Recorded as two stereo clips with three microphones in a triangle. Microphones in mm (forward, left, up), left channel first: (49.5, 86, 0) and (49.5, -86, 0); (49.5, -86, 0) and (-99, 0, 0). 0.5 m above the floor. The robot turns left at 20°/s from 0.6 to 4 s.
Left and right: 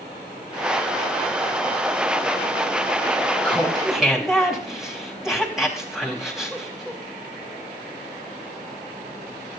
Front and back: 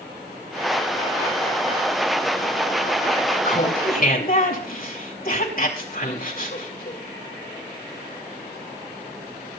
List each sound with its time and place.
3.4 s laughter: 10° left, 4 m; by 7.0 s straight ahead, 4 m